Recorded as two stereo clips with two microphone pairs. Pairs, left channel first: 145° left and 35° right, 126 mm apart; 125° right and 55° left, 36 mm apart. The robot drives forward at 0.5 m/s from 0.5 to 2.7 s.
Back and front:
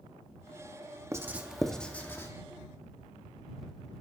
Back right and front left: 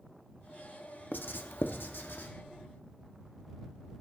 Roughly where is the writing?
Right.